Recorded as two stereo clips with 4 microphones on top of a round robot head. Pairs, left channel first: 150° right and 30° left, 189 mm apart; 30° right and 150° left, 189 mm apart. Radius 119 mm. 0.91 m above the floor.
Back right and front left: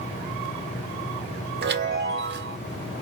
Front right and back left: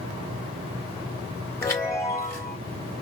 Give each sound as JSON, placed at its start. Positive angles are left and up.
{"t": 1.6, "sound": "a chime", "azimuth_deg": 45, "distance_m": 1.8}